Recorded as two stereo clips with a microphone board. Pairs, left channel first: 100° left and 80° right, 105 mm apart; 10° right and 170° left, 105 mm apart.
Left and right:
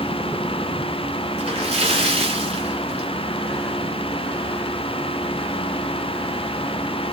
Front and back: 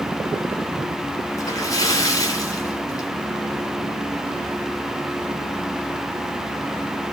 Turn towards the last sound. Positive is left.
turn(degrees=-65)